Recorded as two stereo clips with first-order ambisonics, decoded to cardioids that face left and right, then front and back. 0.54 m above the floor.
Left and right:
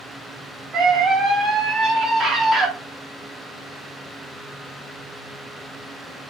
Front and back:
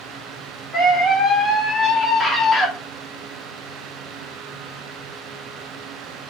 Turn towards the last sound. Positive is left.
turn(degrees=-40)